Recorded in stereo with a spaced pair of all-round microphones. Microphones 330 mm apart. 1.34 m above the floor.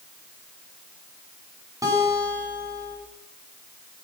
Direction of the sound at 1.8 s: 10° right (ahead or behind).